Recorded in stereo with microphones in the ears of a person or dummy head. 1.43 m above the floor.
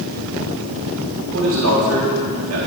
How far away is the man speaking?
About 3 m.